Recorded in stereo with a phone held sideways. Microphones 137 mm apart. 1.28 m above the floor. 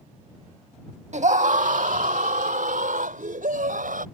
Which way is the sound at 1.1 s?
55° right (ahead or behind).